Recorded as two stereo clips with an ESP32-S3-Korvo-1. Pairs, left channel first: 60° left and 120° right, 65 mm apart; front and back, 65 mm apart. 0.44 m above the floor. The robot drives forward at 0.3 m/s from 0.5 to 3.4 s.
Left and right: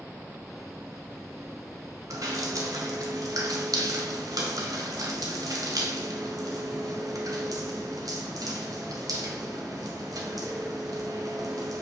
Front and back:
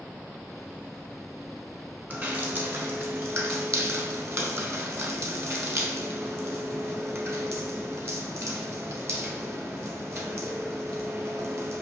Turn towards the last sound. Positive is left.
turn(degrees=-130)